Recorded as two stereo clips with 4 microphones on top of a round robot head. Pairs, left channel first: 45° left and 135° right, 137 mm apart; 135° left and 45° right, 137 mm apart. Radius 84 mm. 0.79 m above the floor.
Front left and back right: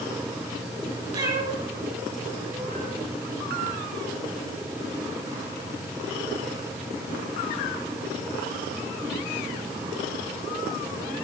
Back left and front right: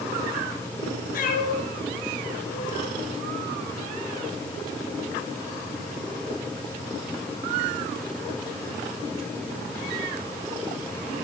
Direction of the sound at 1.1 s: 165° left.